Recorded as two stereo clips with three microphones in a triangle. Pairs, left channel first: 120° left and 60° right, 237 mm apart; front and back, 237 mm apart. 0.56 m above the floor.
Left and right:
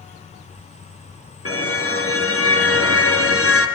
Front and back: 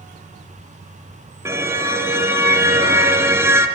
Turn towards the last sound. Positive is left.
turn(degrees=100)